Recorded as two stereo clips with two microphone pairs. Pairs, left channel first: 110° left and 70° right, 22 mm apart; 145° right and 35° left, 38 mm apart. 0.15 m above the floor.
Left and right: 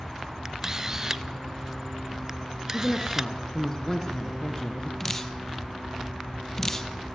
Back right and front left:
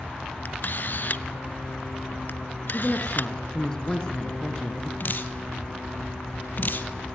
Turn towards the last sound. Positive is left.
turn(degrees=180)